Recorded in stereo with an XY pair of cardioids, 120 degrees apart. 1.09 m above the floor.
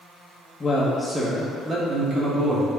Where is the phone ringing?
I don't hear a phone ringing.